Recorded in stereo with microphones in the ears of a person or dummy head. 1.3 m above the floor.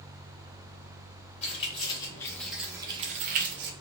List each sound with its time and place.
1.4 s keys jangling: 40° left (ahead or behind), 1.0 m; by 3.7 s 60° right (ahead or behind), 0.7 m